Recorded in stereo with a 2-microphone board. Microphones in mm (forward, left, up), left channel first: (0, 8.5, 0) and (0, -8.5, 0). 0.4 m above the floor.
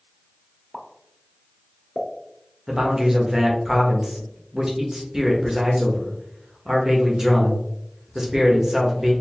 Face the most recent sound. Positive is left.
turn(degrees=-30)  # may be behind; listen again after turning